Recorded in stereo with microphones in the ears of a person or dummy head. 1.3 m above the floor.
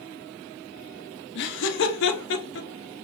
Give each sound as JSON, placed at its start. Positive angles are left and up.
{"t": 1.4, "sound": "laughter", "side_deg": 55, "distance_m": 1.0}